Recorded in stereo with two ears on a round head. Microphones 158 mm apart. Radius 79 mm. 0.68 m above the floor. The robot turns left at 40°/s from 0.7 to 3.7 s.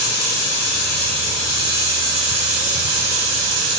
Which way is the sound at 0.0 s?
30° left.